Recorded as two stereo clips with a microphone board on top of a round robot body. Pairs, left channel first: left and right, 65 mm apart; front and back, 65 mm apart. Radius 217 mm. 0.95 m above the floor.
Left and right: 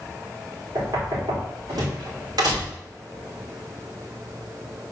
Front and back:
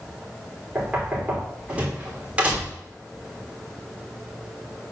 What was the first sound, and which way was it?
Knocking, 110° right.